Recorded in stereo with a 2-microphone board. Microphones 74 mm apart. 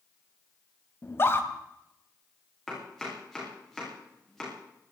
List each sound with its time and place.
1.0 s a scream: 35° left (ahead or behind), 2.5 m
2.7 s chopping: centre (ahead or behind), 8.5 m